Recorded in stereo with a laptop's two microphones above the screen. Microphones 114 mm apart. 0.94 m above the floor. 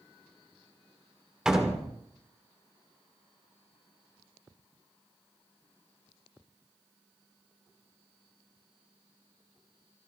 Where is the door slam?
5° right (ahead or behind), 1.8 m.